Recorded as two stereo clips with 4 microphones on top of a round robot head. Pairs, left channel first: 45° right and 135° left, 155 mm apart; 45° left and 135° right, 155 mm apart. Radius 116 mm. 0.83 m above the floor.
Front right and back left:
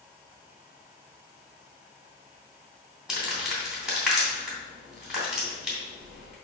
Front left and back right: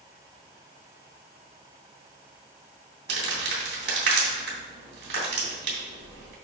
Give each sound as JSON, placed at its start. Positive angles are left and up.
{"t": 3.1, "sound": "crumpling", "azimuth_deg": -140, "distance_m": 3.0}